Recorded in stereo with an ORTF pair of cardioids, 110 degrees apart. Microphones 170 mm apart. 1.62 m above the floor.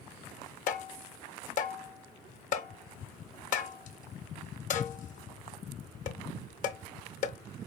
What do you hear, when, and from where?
0.7 s tapping: 50° left, 0.5 m